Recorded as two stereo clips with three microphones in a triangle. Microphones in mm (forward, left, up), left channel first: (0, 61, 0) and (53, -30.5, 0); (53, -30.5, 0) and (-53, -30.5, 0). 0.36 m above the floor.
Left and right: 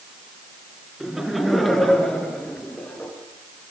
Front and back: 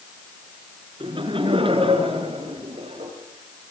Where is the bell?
I don't hear a bell.